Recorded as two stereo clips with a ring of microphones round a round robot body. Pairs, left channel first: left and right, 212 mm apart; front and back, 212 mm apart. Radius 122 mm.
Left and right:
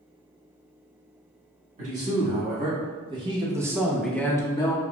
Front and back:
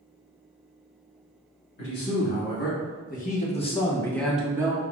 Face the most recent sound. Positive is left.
turn(degrees=130)